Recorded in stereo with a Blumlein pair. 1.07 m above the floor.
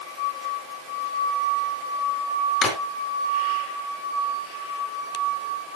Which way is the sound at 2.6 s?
25° left.